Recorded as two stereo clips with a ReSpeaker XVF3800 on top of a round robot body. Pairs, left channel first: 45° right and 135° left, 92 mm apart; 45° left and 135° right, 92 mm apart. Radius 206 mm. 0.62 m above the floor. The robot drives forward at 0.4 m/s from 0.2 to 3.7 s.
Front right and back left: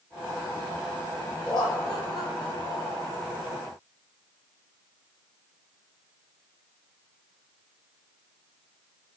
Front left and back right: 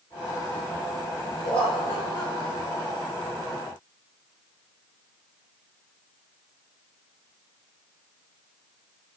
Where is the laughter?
35° left, 3.5 m; by 3.1 s 45° left, 3 m.